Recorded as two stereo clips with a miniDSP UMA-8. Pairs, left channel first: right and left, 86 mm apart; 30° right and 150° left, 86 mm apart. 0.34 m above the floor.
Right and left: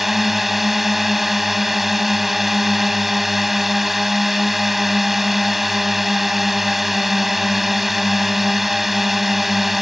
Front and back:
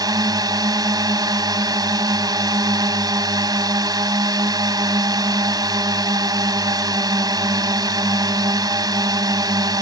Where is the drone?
Straight behind.